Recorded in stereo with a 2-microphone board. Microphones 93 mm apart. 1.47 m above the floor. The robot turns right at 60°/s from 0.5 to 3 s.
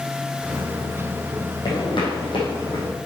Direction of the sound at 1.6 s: 40° left (ahead or behind).